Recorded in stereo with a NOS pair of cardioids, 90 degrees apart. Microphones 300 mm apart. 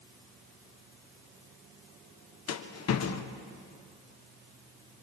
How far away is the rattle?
About 1.6 m.